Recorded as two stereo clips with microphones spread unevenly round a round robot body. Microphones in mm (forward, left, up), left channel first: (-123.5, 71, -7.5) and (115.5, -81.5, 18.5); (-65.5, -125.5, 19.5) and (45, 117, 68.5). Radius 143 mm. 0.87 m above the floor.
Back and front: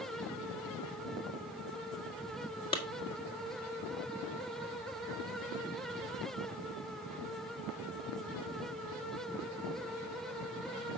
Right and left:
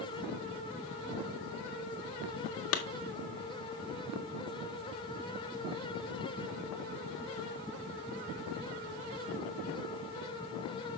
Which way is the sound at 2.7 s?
140° right.